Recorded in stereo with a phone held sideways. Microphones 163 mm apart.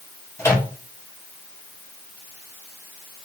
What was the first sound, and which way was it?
A microwave, 15° left (ahead or behind).